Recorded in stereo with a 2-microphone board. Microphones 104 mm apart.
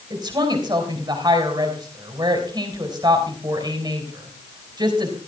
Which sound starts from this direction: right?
A woman speaking, at 0.1 s.